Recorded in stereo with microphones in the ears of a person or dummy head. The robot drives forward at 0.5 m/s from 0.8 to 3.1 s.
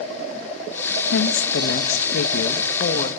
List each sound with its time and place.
1.1 s a woman speaking: 70° left (ahead or behind), 1.5 m; by 3.1 s 45° left (ahead or behind), 2.0 m